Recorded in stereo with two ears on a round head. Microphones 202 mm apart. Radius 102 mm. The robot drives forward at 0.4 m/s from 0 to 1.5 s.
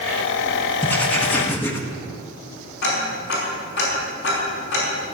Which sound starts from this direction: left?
Ticking, at 2.8 s.